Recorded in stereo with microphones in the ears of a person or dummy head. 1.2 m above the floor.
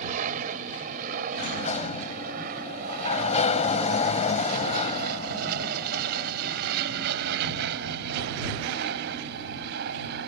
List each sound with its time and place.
0.0 s an aircraft: 40° right (ahead or behind); by 10.3 s 55° right (ahead or behind)
1.3 s a sliding door: 40° left (ahead or behind)